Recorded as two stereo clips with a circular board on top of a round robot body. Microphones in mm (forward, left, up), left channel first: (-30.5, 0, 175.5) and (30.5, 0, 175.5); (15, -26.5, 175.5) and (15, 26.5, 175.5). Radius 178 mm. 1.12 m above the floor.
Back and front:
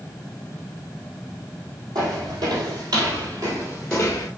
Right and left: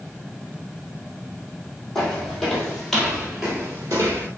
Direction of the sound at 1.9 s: 10° right.